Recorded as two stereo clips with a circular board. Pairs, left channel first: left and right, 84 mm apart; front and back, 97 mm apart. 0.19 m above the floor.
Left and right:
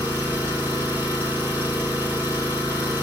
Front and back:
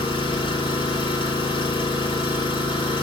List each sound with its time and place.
0.0 s an engine running: 25° right, 3 m